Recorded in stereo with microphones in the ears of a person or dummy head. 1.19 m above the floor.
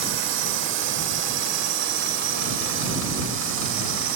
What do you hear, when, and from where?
0.0 s a drone: 75° right (ahead or behind); by 4.2 s 80° right